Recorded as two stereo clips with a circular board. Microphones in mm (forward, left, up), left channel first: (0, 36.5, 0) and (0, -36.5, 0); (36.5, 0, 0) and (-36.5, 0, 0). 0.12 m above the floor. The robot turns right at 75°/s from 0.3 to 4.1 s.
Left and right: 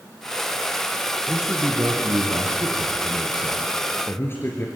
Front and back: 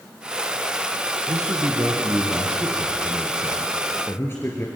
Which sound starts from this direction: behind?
A man speaking, at 1.3 s.